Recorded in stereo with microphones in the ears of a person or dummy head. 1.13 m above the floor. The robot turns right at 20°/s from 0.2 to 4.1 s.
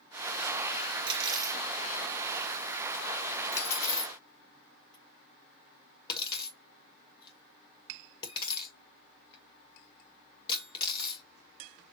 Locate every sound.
1.1 s cutlery clinking: 35° right (ahead or behind), 2 m; by 11.2 s 25° left (ahead or behind), 2 m